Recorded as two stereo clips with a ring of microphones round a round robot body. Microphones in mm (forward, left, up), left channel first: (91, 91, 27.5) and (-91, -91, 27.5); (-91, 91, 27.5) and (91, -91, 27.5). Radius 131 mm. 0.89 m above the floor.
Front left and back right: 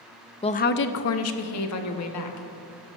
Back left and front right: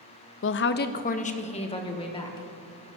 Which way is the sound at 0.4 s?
110° left.